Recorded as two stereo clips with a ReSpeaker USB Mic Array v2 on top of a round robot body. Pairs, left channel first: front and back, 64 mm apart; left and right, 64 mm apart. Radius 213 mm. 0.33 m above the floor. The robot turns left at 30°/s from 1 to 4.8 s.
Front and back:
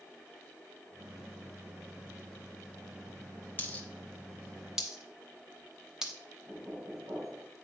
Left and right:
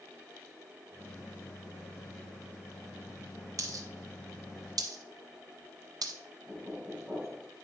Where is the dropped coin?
60° right, 0.9 m; by 6.1 s 100° right, 0.9 m.